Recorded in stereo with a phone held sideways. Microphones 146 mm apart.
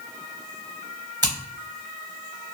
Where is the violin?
No violin in this recording.